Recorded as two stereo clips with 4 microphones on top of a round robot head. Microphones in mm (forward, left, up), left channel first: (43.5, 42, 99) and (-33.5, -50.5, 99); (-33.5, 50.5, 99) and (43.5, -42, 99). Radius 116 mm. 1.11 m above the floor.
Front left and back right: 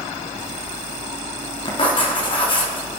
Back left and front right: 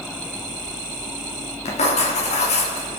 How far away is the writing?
About 2.5 m.